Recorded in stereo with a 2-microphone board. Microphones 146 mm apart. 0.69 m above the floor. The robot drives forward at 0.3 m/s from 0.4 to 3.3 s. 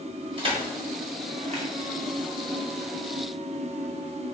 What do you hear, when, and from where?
0.4 s crushing: 35° right (ahead or behind), 1.5 m; by 1.7 s 45° right (ahead or behind), 1.2 m